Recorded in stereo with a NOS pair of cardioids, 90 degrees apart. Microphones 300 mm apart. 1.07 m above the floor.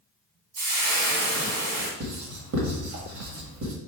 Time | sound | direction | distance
0.6 | frying | 60° right | 1.8 m
2.0 | writing | 60° right | 1.6 m